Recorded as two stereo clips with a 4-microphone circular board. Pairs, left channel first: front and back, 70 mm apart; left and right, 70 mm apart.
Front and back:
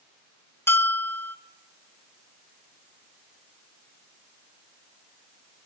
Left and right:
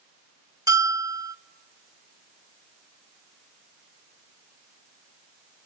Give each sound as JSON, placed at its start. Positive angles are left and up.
{"t": 0.7, "sound": "a bell", "azimuth_deg": -55, "distance_m": 0.5}